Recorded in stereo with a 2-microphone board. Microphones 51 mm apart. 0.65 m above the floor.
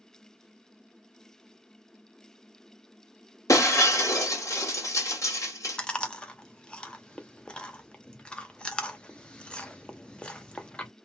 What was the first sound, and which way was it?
Breaking glass, 80° left.